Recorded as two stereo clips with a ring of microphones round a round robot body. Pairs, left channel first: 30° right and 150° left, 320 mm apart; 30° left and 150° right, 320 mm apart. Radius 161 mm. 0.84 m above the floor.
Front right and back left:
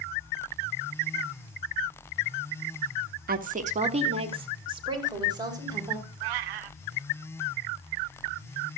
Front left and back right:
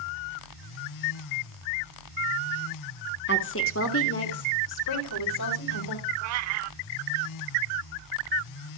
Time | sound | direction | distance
3.3 | a woman speaking | 85° left | 1.5 m
6.2 | a cat meowing | 170° left | 0.9 m